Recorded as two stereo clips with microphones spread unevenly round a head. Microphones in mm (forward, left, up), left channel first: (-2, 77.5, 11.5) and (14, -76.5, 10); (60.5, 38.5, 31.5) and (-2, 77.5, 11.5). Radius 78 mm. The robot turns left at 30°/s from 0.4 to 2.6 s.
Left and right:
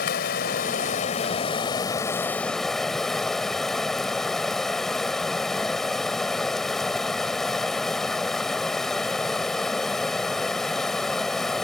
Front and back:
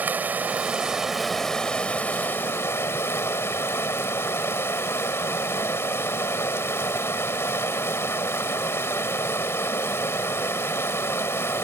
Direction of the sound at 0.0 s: 75° left.